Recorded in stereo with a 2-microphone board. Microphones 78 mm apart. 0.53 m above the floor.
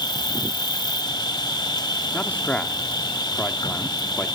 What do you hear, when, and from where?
0.0 s an insect: 70° left (ahead or behind), 1.1 m
2.1 s a man speaking: 20° left (ahead or behind), 1.1 m